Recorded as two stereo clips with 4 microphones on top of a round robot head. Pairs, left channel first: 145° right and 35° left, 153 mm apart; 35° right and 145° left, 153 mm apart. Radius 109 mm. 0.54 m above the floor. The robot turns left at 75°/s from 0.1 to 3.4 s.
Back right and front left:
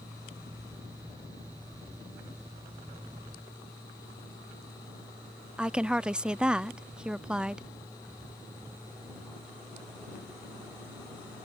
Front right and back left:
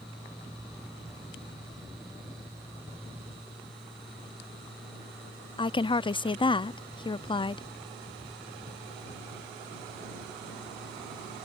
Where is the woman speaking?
45° right.